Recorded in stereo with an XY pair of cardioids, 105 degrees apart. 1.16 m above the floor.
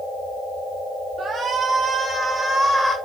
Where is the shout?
50° right, 1.8 m; by 3.0 s 10° left, 1.6 m.